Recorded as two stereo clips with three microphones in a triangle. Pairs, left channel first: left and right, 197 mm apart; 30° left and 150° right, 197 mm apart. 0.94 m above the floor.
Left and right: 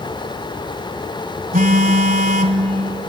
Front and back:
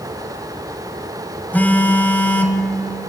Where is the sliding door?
I don't hear a sliding door.